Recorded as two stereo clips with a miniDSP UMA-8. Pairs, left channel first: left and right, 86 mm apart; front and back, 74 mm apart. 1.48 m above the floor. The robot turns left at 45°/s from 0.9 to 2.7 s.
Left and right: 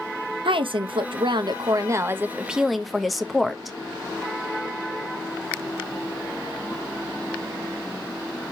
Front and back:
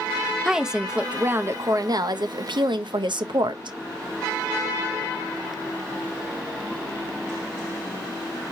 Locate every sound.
0.5 s a woman speaking: 95° right, 0.5 m; by 3.8 s straight behind, 0.5 m